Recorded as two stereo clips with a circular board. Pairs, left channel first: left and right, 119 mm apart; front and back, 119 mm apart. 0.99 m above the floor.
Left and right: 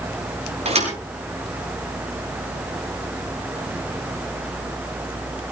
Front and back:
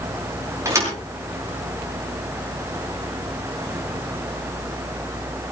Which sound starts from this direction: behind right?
A thud, at 0.7 s.